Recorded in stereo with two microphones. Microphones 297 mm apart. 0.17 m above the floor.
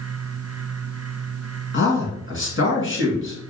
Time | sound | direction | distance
1.7 | a man speaking | 40° left (ahead or behind) | 1.8 m